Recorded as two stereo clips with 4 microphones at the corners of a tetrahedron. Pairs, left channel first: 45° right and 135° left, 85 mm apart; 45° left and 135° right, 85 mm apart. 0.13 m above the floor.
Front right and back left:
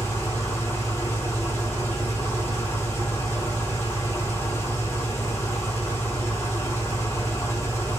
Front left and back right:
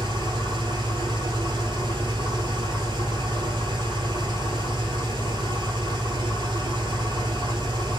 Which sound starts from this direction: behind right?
An engine running, at 0.0 s.